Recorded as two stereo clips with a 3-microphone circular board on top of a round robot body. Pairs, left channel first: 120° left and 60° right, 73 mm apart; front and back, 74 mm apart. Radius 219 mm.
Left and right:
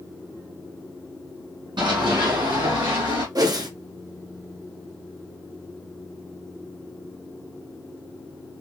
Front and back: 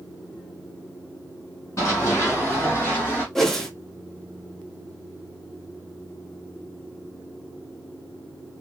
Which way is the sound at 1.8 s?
55° right.